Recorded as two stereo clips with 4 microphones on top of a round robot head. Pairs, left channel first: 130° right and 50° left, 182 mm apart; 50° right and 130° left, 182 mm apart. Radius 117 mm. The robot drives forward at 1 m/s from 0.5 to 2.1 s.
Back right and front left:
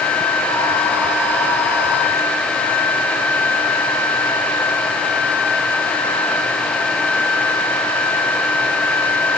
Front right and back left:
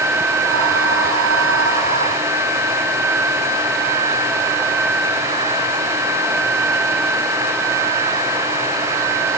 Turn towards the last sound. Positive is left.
No sound to turn to.